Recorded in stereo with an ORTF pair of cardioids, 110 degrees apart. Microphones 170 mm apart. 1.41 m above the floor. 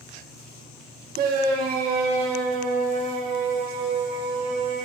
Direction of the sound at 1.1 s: 60° right.